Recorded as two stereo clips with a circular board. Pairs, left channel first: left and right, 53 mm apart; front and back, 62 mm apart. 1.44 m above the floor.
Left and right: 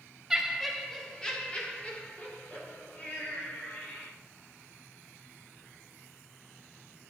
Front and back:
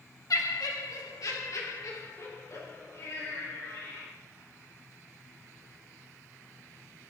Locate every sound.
0.3 s laughter: 10° right, 2 m; by 4.1 s 45° left, 5 m